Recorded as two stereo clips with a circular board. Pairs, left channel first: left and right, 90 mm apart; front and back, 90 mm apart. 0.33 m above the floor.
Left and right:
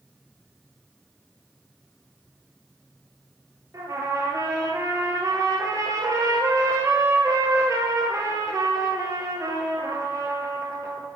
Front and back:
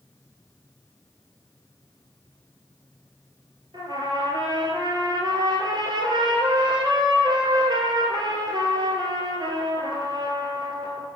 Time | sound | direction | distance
3.7 | a trumpet | 145° right | 1.2 m